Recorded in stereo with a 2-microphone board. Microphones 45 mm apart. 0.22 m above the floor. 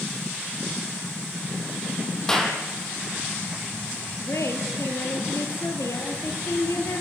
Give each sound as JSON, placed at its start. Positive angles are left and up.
{"t": 2.3, "sound": "a clap", "side_deg": 10, "distance_m": 5.5}
{"t": 4.2, "sound": "a woman speaking", "side_deg": 75, "distance_m": 4.5}